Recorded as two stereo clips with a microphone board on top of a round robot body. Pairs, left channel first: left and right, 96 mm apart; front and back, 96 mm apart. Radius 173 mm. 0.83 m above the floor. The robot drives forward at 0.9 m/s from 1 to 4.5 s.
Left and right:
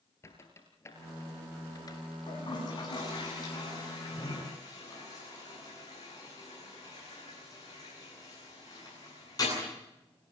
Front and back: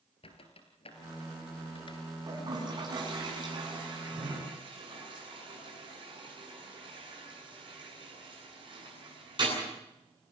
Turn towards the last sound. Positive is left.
turn(degrees=140)